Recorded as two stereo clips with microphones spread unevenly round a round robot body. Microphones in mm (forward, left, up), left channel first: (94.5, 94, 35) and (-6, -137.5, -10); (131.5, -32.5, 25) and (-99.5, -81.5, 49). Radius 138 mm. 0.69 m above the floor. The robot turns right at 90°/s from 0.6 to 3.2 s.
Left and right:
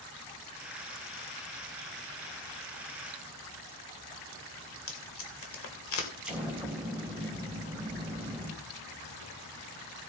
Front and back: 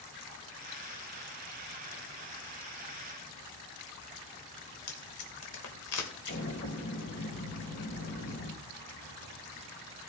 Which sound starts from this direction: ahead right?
An explosion, at 6.2 s.